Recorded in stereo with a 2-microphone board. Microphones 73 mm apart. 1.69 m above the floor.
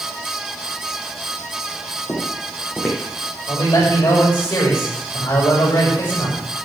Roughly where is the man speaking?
Left.